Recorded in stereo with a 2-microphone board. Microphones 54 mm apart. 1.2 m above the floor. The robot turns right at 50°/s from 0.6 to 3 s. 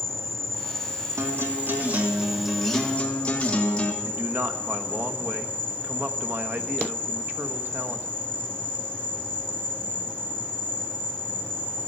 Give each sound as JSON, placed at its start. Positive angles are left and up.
{"t": 0.0, "sound": "an insect", "azimuth_deg": -95, "distance_m": 1.3}
{"t": 1.2, "sound": "a guitar", "azimuth_deg": -70, "distance_m": 1.8}
{"t": 4.0, "sound": "a man speaking", "side_deg": -40, "distance_m": 1.1}